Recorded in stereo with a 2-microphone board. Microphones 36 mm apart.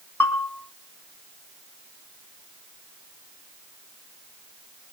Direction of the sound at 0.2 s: 60° left (ahead or behind).